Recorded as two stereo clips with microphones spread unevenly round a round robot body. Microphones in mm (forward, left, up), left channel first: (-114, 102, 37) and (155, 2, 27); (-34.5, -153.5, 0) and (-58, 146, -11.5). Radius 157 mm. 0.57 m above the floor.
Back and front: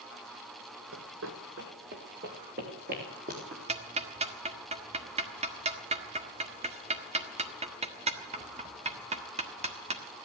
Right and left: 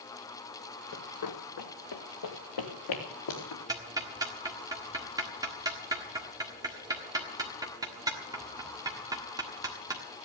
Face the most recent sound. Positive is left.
turn(degrees=25)